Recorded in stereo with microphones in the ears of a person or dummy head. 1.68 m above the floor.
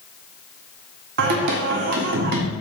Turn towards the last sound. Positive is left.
turn(degrees=-55)  # may be behind; listen again after turning